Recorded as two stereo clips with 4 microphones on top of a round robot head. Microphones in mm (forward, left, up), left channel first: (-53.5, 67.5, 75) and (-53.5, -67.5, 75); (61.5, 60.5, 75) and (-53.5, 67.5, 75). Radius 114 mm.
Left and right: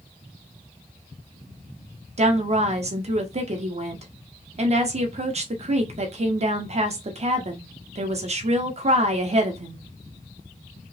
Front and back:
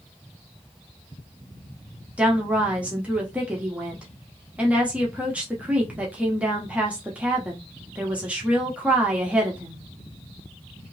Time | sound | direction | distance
2.2 | a woman speaking | 105° right | 1.0 m